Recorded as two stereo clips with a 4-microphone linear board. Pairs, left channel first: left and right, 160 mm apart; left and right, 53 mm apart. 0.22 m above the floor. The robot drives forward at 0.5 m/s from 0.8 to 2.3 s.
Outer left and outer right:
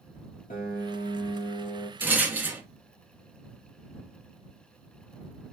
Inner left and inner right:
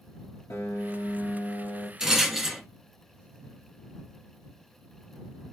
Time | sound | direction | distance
0.5 | a piano | 60° left (ahead or behind) | 1.1 m
2.0 | a rattle | 10° right (ahead or behind) | 0.8 m